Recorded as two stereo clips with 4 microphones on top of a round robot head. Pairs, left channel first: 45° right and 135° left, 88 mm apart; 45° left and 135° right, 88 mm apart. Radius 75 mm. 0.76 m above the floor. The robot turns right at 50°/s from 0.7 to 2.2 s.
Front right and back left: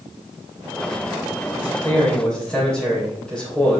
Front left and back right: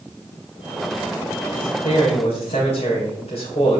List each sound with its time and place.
1.5 s a man speaking: 5° left, 3 m; by 3.8 s 40° left, 3 m